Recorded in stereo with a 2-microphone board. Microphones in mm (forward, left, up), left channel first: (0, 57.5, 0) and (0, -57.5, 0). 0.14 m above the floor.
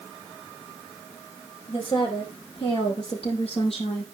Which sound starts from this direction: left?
A woman speaking, at 1.7 s.